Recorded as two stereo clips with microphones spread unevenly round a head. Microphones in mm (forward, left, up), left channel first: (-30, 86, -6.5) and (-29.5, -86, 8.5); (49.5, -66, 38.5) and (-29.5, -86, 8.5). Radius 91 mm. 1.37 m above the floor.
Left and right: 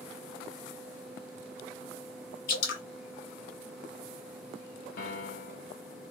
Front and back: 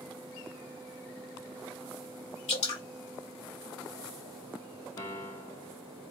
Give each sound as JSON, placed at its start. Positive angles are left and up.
{"t": 2.5, "sound": "dripping", "azimuth_deg": 55, "distance_m": 1.0}
{"t": 5.0, "sound": "a piano", "azimuth_deg": 50, "distance_m": 0.6}